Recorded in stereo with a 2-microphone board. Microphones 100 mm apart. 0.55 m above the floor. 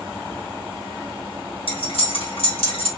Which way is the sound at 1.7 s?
65° left (ahead or behind).